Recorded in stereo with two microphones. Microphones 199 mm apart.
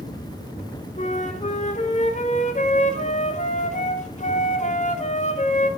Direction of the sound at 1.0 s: 35° left (ahead or behind).